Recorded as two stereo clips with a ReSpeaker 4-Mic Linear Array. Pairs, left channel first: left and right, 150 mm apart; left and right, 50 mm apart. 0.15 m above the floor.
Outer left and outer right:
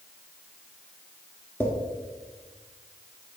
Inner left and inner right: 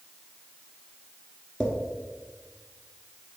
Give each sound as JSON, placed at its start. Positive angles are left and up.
{"t": 1.6, "sound": "a drawer", "side_deg": 10, "distance_m": 1.3}